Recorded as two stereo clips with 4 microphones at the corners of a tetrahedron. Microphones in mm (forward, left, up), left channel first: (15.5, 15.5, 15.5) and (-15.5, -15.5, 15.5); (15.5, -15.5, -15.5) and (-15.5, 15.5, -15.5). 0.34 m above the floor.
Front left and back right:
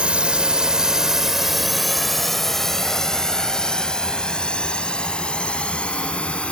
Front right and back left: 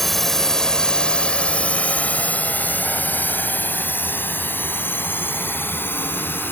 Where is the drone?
125° right; by 6.5 s 15° right.